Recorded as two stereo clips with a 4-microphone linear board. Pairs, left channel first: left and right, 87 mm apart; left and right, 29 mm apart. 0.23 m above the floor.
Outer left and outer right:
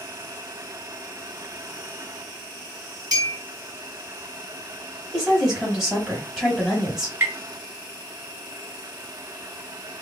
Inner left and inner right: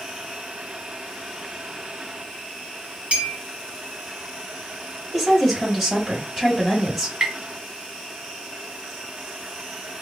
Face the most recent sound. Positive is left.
turn(degrees=-25)  # may be behind; listen again after turning